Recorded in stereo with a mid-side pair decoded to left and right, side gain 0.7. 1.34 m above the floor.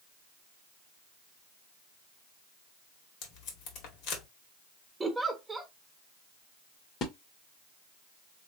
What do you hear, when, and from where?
3.2 s tape being pulled: 65° left, 1.9 m
5.0 s a giggle: 10° right, 1.3 m
7.0 s a splash: 40° left, 1.5 m